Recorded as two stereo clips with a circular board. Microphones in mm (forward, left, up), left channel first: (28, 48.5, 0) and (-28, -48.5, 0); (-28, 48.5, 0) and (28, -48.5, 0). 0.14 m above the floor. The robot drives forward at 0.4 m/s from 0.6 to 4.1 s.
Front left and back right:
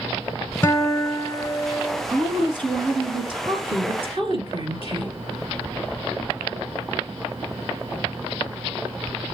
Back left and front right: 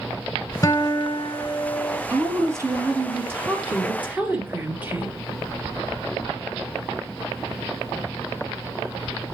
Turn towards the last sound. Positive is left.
turn(degrees=-130)